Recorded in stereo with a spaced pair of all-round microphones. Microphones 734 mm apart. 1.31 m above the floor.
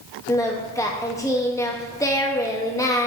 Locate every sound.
0.3 s singing: 5° left (ahead or behind), 0.7 m